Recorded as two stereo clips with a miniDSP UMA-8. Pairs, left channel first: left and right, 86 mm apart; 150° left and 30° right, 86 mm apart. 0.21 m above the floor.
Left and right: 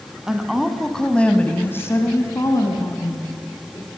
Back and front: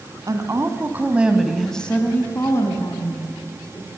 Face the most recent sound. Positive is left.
turn(degrees=130)